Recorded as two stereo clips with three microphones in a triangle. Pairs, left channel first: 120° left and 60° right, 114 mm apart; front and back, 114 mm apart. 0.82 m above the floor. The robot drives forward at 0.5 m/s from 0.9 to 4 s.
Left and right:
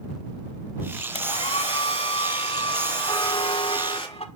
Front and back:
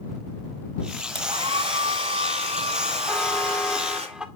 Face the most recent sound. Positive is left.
turn(degrees=95)